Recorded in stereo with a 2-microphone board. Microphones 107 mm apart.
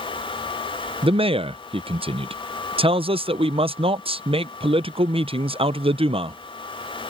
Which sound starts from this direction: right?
A man speaking, at 1.0 s.